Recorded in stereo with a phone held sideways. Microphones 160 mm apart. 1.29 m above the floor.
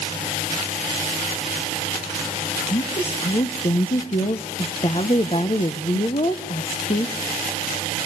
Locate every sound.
2.7 s a woman speaking: 40° left (ahead or behind), 0.8 m